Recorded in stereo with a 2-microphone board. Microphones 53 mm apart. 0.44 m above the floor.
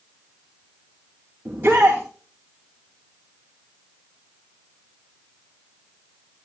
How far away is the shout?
About 3 m.